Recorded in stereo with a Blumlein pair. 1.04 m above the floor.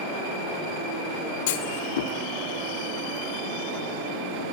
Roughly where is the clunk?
Ahead left.